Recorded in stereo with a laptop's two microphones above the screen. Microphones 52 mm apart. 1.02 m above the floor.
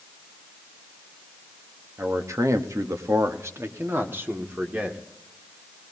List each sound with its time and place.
2.0 s a man speaking: 65° right (ahead or behind), 1.0 m; by 5.0 s 35° right (ahead or behind), 2.5 m